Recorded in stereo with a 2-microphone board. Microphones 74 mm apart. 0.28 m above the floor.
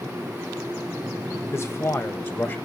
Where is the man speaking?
40° left (ahead or behind), 1.4 m; by 2.6 s 30° left (ahead or behind), 1.4 m.